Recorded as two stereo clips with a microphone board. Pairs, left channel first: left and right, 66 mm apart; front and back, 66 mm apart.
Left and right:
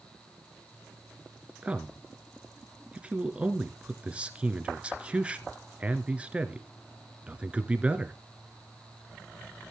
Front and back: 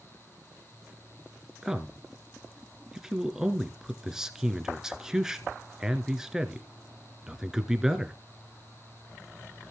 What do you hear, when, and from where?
1.6 s a man speaking: 115° right, 1.2 m